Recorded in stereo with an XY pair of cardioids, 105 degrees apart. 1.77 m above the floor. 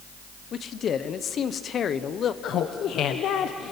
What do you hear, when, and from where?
0.5 s a man speaking: 55° left, 1.1 m
2.4 s laughter: 70° left, 1.1 m